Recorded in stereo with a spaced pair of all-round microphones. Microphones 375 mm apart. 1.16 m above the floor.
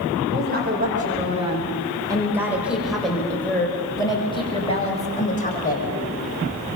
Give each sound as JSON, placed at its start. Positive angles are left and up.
{"t": 0.3, "sound": "a woman speaking", "side_deg": -25, "distance_m": 4.5}